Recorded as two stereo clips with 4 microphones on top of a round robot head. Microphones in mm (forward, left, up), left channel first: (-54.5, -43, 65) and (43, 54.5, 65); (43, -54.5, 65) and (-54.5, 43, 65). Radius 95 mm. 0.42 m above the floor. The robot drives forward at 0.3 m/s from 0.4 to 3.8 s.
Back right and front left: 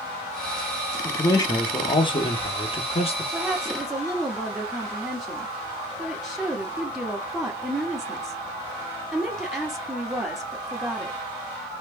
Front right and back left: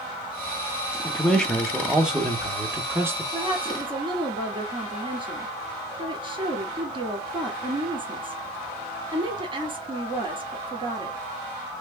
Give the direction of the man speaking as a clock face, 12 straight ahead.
4 o'clock.